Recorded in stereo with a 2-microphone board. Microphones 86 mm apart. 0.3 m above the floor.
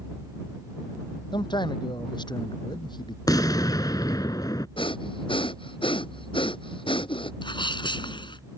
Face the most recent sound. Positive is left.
turn(degrees=70)  # may be behind; listen again after turning